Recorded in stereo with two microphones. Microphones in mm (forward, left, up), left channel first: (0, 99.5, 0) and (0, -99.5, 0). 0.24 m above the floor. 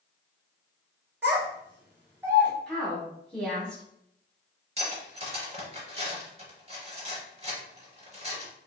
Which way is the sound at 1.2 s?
10° right (ahead or behind).